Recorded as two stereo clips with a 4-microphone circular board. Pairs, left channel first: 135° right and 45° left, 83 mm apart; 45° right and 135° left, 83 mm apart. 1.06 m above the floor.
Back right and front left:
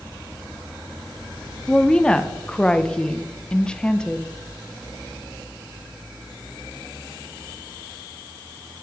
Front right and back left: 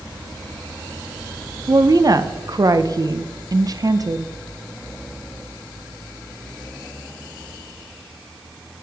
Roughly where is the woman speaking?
Behind left.